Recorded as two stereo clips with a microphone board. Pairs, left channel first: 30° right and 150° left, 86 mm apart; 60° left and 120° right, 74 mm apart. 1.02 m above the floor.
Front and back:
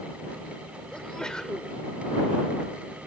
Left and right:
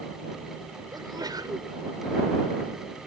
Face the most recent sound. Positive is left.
turn(degrees=-110)